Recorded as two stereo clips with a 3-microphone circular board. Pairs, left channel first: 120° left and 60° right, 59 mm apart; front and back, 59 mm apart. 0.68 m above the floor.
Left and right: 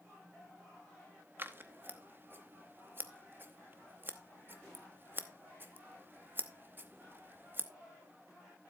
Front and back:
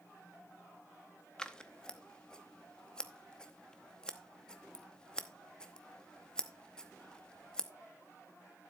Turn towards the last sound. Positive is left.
turn(degrees=-65)